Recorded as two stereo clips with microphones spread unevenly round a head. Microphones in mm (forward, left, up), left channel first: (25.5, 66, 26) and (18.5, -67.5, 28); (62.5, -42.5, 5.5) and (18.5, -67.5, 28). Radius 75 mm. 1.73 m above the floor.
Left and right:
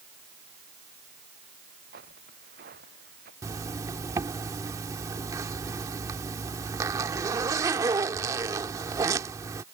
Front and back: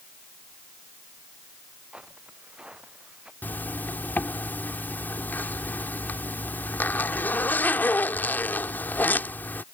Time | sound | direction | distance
1.9 | footsteps | 80° right | ?
3.4 | a zipper | 40° right | ?